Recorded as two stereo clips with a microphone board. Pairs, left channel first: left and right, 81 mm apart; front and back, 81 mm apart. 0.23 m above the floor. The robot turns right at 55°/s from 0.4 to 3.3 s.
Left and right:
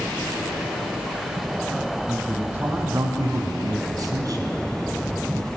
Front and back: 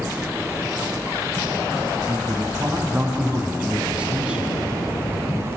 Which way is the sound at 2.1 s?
175° right.